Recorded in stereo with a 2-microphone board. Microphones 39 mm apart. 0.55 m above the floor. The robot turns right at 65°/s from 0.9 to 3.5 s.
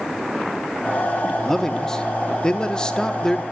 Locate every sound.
1.4 s a man speaking: 10° left (ahead or behind), 0.6 m